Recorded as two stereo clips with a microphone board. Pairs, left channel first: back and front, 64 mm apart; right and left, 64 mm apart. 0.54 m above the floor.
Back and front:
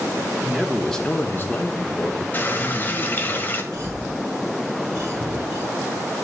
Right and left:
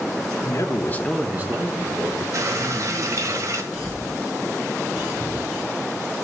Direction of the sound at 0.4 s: 75° right.